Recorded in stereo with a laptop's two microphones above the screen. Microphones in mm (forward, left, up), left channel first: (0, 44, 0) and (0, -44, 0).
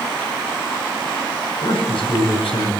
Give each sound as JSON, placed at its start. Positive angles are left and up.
{"t": 1.6, "sound": "a man speaking", "side_deg": 80, "distance_m": 7.0}